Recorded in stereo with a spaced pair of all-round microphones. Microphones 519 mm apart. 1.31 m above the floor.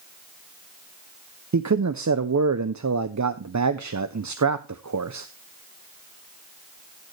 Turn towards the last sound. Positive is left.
turn(degrees=-35)  # may be behind; listen again after turning